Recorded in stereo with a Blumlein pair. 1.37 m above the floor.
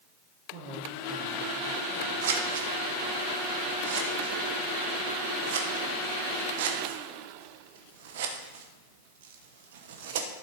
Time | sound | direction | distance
0.5 | a man speaking | 45° right | 1.7 m
2.2 | scissors | 55° right | 1.2 m